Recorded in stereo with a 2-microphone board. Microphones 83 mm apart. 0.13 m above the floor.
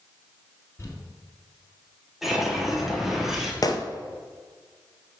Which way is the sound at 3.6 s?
50° left (ahead or behind).